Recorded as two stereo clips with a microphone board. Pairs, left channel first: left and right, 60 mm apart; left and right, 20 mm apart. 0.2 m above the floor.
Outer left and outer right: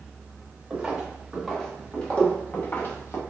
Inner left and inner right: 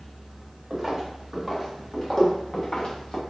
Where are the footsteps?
10° right (ahead or behind), 2 m; by 3.2 s 45° left (ahead or behind), 1.7 m.